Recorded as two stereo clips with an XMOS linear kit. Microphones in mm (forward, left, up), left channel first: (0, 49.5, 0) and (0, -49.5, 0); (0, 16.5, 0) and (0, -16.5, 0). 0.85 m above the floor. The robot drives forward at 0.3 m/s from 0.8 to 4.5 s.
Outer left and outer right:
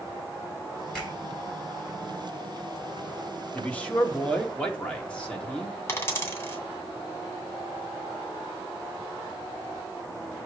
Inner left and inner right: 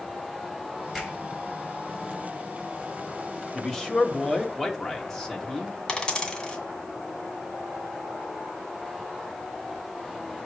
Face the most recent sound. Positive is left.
turn(degrees=25)  # may be behind; listen again after turning